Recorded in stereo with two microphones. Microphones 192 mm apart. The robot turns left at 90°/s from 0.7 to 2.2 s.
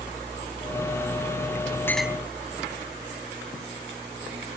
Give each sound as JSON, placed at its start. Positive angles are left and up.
{"t": 1.9, "sound": "a clink", "side_deg": 15}